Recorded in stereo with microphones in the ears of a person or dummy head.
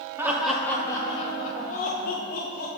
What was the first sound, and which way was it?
Laughter, 10° right (ahead or behind).